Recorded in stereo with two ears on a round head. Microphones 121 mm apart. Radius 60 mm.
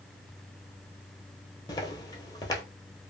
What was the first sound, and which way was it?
Footsteps, 30° left (ahead or behind).